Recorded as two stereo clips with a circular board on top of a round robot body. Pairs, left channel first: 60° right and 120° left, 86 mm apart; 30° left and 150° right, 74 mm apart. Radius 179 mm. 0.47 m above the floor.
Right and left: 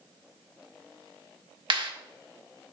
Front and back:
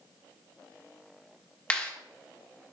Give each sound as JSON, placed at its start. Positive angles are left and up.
{"t": 1.7, "sound": "a clap", "azimuth_deg": 105, "distance_m": 1.8}